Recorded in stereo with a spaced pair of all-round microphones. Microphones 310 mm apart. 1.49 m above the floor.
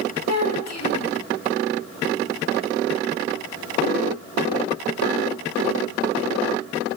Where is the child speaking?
65° left (ahead or behind), 3.5 m.